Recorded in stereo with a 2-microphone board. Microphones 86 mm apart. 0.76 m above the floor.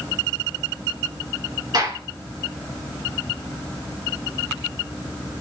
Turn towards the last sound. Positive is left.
turn(degrees=-55)  # may be behind; listen again after turning